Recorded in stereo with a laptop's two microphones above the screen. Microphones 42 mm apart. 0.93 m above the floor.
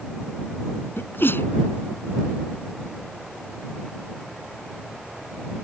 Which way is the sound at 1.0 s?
60° left (ahead or behind).